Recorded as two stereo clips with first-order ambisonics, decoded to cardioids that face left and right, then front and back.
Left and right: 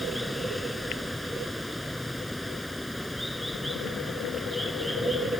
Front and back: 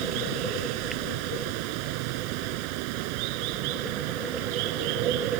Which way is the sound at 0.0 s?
Straight behind.